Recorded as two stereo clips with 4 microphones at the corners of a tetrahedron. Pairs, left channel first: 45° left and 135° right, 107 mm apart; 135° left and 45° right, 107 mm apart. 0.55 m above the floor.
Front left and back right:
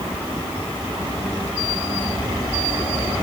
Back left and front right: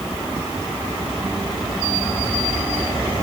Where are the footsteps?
No footsteps in this recording.